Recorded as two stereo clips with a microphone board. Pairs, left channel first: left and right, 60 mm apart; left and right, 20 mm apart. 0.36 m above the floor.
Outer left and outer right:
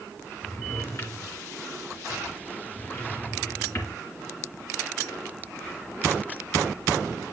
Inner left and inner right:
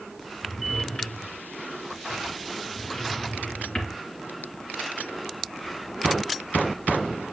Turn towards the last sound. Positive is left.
turn(degrees=45)  # may be behind; listen again after turning